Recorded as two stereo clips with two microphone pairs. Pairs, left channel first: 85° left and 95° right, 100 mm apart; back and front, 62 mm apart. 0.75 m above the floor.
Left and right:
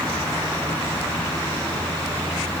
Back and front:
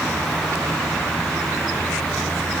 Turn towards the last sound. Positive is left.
No sound to turn to.